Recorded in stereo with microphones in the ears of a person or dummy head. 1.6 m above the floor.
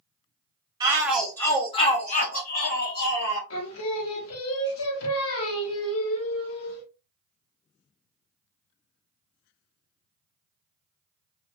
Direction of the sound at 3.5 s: 80° left.